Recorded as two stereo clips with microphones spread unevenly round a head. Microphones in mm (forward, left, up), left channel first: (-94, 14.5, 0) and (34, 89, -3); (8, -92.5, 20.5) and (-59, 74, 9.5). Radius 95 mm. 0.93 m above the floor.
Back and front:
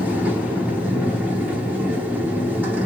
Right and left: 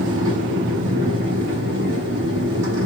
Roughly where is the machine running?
Left.